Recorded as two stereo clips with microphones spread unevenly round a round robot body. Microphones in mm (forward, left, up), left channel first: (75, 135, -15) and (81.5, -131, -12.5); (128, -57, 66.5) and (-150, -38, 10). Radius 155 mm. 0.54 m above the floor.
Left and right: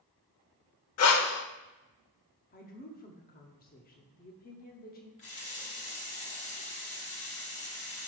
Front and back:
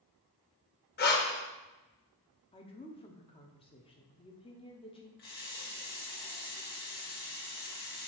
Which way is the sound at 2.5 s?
70° left.